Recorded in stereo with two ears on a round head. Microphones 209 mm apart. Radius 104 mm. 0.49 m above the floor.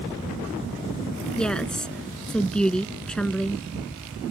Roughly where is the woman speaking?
Centre.